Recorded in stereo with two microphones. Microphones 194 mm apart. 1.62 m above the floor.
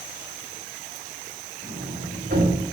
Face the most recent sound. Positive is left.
turn(degrees=-70)  # may be behind; listen again after turning